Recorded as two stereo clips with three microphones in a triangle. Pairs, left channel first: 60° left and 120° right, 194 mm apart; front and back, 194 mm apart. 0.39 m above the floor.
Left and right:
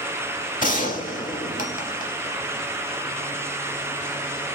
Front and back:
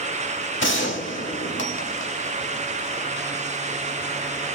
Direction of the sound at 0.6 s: 10° left.